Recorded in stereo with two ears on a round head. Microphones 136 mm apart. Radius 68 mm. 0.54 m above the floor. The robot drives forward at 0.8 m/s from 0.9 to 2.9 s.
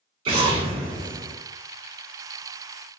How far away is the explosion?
About 1.2 m.